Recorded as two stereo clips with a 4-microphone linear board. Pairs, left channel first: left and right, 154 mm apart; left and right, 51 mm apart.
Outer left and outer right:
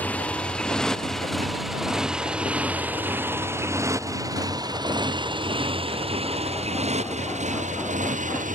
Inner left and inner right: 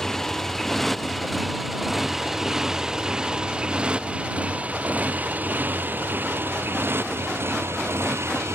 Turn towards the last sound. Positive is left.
turn(degrees=-60)  # may be behind; listen again after turning